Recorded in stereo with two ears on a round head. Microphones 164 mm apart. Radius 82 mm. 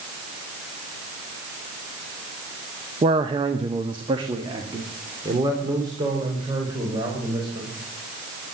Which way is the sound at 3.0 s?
25° right (ahead or behind).